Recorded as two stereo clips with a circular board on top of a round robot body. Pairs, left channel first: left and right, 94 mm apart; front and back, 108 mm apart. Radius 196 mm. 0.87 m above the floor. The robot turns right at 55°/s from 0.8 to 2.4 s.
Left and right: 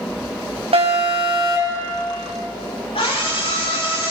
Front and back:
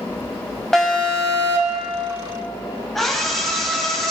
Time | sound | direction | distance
0.7 | an alarm | 85° right | 4.5 m
3.0 | a scream | 90° left | 8.5 m